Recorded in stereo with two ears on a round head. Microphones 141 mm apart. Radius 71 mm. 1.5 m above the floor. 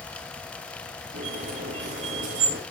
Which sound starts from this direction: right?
A squeak, at 1.1 s.